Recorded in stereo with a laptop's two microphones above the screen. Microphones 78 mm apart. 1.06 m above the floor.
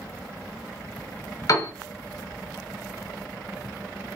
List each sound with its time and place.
1.5 s a piano: 45° left (ahead or behind), 1.1 m